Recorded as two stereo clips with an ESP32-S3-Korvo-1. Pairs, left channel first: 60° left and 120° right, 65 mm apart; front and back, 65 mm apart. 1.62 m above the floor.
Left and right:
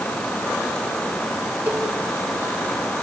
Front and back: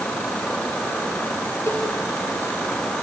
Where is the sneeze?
No sneeze in this recording.